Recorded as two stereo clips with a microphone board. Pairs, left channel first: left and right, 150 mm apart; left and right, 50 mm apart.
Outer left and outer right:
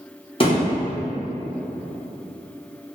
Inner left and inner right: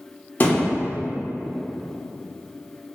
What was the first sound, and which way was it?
A thud, 35° left (ahead or behind).